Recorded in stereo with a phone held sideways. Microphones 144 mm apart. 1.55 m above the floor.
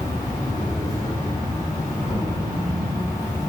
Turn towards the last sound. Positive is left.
turn(degrees=25)  # may be behind; listen again after turning